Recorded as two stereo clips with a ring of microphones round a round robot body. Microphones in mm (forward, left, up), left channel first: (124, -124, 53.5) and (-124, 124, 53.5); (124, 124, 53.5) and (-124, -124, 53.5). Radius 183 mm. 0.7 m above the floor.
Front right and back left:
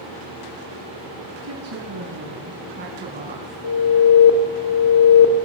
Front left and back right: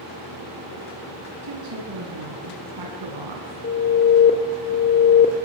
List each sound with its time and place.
1.4 s a woman speaking: straight behind, 4.5 m; by 3.5 s 155° right, 7 m
3.6 s an alarm: 15° right, 3.5 m